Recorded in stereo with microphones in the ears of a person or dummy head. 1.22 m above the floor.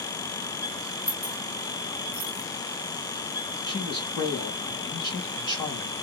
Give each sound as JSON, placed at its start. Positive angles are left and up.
{"t": 1.1, "sound": "keys jangling", "side_deg": 10, "distance_m": 0.7}
{"t": 3.7, "sound": "a man speaking", "side_deg": 20, "distance_m": 1.6}